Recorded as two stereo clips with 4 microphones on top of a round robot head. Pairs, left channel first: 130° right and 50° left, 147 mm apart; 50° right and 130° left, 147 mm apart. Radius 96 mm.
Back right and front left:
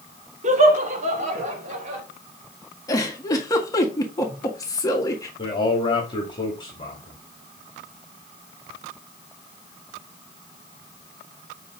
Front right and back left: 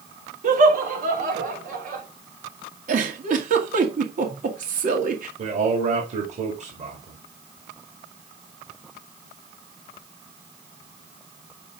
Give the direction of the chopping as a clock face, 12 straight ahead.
I don't hear chopping.